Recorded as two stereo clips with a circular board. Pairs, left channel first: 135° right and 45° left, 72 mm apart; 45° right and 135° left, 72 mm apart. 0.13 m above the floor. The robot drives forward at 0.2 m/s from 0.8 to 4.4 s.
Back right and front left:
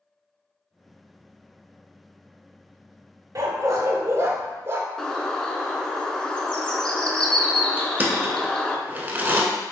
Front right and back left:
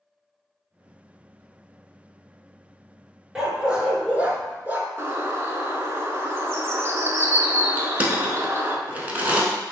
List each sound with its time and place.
3.4 s a dog barking: 55° left, 0.7 m; by 4.9 s 80° left, 0.6 m
5.0 s a bird: 155° left, 0.6 m
7.8 s crushing: 85° left, 0.7 m